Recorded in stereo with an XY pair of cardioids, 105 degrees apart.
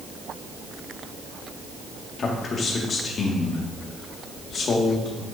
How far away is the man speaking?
About 1.8 m.